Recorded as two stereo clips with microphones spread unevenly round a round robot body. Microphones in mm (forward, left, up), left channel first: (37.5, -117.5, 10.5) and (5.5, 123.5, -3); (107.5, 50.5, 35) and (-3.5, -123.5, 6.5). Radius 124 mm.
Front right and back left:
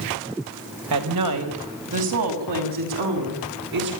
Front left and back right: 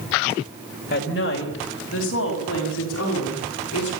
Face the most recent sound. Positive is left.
turn(degrees=100)